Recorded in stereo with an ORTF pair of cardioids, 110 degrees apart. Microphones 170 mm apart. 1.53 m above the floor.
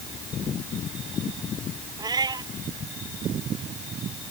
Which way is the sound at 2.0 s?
25° right.